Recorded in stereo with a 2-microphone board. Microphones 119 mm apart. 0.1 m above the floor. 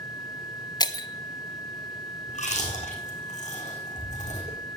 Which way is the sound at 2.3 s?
80° left.